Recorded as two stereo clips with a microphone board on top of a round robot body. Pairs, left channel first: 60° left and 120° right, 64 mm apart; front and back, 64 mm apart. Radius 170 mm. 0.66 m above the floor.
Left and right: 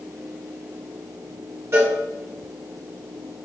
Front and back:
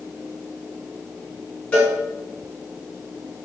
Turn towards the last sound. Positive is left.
turn(degrees=-70)